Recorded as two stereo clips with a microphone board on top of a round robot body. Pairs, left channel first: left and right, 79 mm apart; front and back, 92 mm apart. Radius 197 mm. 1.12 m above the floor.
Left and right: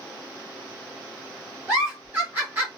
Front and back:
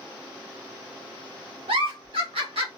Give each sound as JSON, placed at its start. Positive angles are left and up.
{"t": 1.7, "sound": "a giggle", "azimuth_deg": -155, "distance_m": 1.1}